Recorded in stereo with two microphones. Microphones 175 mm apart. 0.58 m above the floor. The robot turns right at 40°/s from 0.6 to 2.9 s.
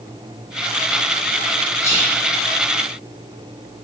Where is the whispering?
15° left (ahead or behind), 1.0 m; by 2.2 s 20° left (ahead or behind), 1.0 m.